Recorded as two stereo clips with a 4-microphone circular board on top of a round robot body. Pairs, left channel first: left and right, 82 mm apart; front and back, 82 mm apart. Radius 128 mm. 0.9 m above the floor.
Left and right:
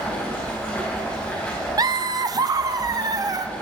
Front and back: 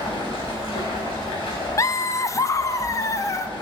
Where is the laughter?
50° right, 0.8 m.